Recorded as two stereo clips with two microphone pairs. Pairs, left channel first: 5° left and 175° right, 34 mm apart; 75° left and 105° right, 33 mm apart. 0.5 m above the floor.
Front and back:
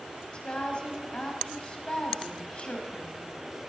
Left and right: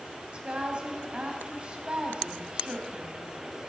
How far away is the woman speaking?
About 3 m.